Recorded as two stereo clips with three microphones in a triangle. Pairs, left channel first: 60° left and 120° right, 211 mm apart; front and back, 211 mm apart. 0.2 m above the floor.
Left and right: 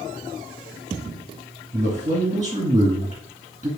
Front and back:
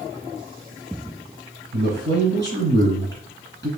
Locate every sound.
1.7 s a man speaking: 175° left, 2 m